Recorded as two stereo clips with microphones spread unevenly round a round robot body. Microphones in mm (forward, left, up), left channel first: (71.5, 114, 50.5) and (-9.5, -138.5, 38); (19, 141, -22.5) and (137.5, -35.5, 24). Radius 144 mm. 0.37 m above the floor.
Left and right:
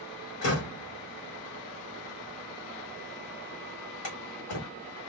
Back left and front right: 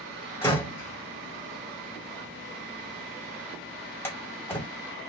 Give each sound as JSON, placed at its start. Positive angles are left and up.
{"t": 0.4, "sound": "a door slam", "azimuth_deg": 50, "distance_m": 1.5}